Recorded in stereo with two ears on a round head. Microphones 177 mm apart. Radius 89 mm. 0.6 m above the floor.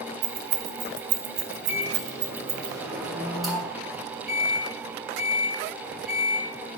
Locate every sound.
0.2 s keys jangling: 75° right (ahead or behind), 1.6 m; by 2.7 s 10° right (ahead or behind), 1.5 m
1.7 s a microwave: centre (ahead or behind), 4.5 m